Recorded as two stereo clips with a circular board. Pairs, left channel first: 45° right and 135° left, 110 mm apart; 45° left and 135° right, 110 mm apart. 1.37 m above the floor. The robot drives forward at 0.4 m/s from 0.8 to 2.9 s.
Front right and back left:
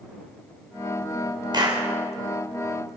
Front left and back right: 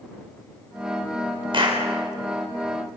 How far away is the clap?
About 3.5 m.